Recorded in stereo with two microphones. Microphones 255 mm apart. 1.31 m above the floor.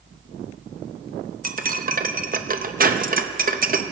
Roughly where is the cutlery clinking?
Right.